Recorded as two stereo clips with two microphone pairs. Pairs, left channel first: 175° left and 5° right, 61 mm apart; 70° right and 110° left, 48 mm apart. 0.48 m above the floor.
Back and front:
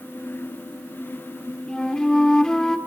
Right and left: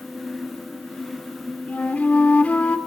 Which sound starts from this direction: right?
A flute, at 1.7 s.